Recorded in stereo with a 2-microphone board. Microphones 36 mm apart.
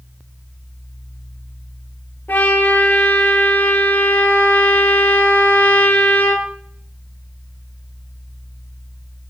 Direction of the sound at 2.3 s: 65° left (ahead or behind).